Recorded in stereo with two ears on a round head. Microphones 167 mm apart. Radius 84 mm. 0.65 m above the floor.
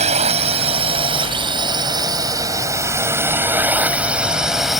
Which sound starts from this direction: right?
A drone, at 0.0 s.